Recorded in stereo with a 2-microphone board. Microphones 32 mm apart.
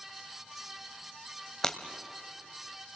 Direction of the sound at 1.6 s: 20° left (ahead or behind).